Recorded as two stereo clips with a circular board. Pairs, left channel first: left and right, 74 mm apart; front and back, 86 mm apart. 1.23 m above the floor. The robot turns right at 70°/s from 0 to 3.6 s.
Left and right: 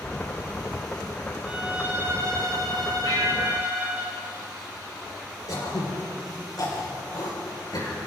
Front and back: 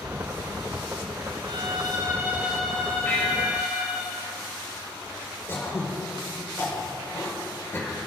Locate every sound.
1.4 s a violin: 170° right, 6.5 m; by 4.0 s 20° right, 6.5 m
3.0 s a bell: 65° left, 4 m; by 4.0 s 105° left, 4 m
5.5 s throat clearing: 60° left, 5 m